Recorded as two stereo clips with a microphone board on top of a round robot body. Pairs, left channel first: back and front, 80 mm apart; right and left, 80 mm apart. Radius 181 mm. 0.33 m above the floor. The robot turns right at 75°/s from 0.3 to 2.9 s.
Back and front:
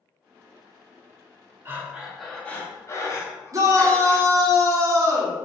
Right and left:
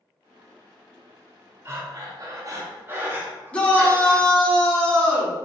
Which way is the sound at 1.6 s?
50° left.